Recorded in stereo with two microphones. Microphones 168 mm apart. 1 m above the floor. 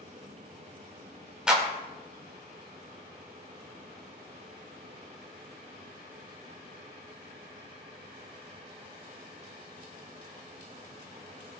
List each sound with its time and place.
1.5 s a clap: 5° right (ahead or behind), 2.5 m